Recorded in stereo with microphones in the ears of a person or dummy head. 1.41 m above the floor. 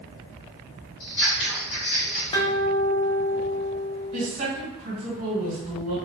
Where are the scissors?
65° left (ahead or behind), 1.3 m.